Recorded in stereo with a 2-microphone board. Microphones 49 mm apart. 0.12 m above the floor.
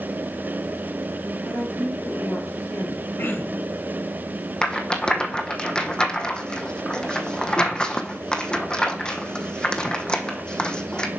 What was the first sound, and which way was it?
A woman speaking, 35° left (ahead or behind).